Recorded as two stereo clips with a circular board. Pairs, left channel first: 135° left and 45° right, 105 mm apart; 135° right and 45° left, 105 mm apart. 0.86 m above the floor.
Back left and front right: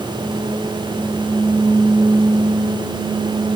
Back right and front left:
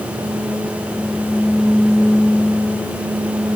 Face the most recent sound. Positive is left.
No sound to turn to.